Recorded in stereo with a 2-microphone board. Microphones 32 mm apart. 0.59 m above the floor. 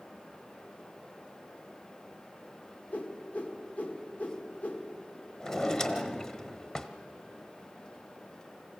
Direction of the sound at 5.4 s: 30° left (ahead or behind).